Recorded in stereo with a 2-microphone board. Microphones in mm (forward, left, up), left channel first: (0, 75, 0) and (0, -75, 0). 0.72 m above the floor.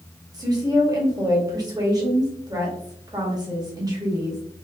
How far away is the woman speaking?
About 1.3 m.